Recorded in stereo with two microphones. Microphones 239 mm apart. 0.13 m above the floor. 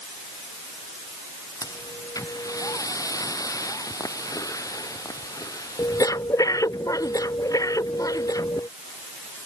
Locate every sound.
1.6 s breathing: 15° left (ahead or behind)